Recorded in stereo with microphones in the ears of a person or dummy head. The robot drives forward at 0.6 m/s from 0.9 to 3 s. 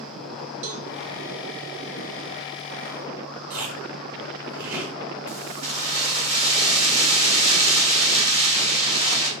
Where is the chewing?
70° right (ahead or behind), 4.5 m.